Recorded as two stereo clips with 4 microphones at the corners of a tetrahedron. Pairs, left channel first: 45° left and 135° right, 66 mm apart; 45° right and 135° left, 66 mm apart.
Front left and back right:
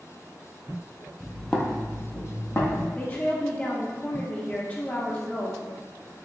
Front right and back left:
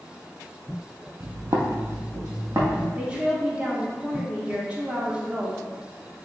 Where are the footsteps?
135° left, 0.6 m; by 2.9 s 90° left, 1.3 m.